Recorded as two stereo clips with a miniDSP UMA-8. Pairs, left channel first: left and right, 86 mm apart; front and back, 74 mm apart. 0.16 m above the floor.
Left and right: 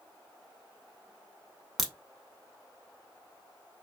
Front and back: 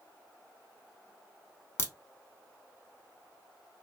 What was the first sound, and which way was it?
A crack, straight ahead.